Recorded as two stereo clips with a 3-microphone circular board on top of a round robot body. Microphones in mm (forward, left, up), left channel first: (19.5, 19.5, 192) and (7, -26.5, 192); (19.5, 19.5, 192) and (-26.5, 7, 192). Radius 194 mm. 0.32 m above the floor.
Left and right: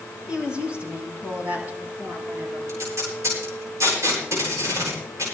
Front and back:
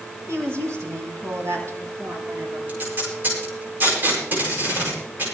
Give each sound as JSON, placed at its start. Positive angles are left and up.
{"t": 0.3, "sound": "a woman speaking", "azimuth_deg": -175, "distance_m": 4.5}
{"t": 2.7, "sound": "tape being pulled", "azimuth_deg": -115, "distance_m": 9.5}